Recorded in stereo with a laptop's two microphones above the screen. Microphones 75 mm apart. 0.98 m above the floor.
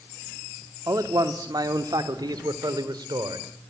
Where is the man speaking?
60° right (ahead or behind), 2 m; by 3.5 s 80° right, 4 m.